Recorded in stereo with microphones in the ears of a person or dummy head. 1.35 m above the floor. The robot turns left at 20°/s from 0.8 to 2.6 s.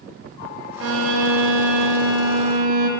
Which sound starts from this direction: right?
A violin, at 0.8 s.